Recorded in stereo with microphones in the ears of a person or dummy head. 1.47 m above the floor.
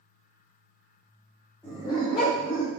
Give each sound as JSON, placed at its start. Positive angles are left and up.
{"t": 1.6, "sound": "a dog barking", "side_deg": 10, "distance_m": 1.6}